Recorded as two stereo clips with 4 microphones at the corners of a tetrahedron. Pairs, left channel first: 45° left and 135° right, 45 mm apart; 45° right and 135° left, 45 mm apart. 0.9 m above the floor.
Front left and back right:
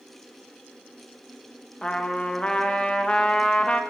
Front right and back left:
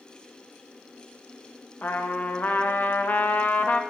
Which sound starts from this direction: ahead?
A trumpet, at 1.8 s.